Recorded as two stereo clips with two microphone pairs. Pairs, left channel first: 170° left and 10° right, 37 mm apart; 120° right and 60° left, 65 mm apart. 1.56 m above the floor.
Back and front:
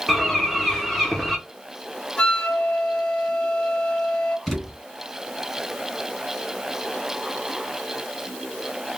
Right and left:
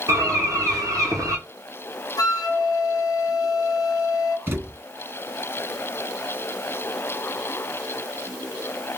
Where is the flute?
125° right, 0.6 m.